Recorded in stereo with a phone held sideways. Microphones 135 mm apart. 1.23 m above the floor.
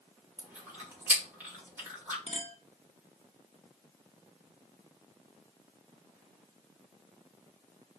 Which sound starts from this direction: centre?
Chewing, at 0.4 s.